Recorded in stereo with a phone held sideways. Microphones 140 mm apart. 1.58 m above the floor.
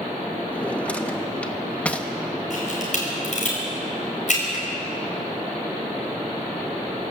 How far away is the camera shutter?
About 5.5 m.